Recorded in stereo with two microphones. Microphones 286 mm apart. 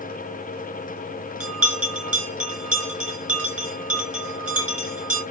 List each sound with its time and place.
1.4 s a bell: 55° right (ahead or behind), 3.5 m